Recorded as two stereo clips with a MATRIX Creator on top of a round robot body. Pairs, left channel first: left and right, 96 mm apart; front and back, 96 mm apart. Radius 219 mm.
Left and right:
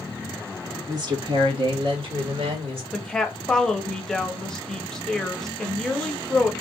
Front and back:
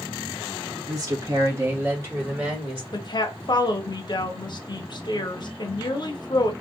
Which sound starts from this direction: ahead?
A woman speaking, at 2.9 s.